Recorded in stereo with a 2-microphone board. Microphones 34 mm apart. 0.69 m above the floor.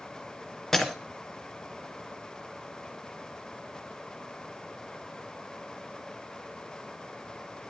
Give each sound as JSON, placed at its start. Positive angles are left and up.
{"t": 0.7, "sound": "breaking glass", "side_deg": 10, "distance_m": 2.5}